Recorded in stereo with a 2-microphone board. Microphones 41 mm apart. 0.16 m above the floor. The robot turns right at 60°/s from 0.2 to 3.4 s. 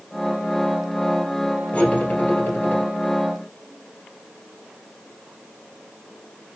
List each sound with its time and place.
1.7 s cutlery clinking: 35° left, 1.8 m; by 2.8 s 100° left, 1.8 m